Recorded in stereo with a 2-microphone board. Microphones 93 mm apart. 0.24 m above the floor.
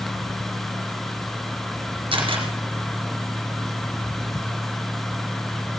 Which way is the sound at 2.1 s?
75° right (ahead or behind).